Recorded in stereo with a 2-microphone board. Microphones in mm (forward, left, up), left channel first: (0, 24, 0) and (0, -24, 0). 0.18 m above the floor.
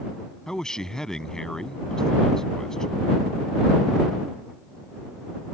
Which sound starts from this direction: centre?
A man speaking, at 0.5 s.